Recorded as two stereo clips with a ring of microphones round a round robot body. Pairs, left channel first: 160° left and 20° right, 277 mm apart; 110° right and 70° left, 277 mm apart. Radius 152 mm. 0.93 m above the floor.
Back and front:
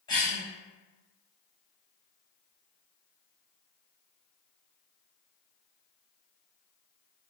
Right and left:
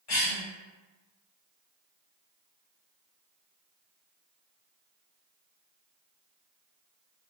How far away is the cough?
About 1.0 m.